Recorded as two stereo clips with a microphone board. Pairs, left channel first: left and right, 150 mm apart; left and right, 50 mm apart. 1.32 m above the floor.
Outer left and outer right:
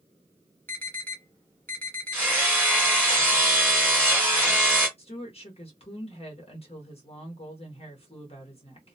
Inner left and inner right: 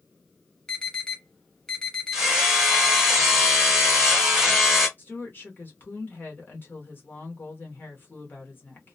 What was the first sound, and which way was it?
An alarm, 15° left (ahead or behind).